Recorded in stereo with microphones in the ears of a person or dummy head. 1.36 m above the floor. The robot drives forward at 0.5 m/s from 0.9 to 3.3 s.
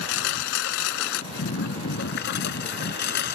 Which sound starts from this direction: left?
A lawn mower, at 0.0 s.